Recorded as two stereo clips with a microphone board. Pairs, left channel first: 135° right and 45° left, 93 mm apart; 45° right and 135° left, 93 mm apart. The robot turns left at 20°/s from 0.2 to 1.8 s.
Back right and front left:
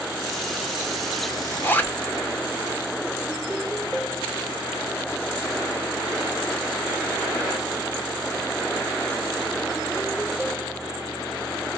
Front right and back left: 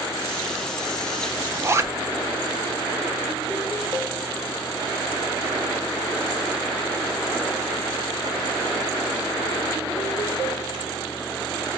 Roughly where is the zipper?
Behind.